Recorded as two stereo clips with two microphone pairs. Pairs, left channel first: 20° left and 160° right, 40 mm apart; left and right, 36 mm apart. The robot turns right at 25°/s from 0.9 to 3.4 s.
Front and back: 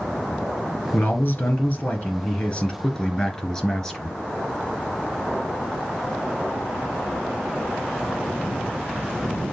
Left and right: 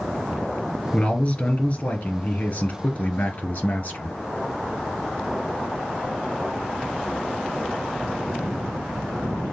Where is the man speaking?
40° left, 1.9 m; by 4.2 s 100° left, 1.9 m.